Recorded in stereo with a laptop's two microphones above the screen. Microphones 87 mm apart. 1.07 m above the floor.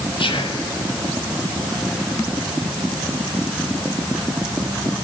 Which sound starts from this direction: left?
Whispering, at 0.2 s.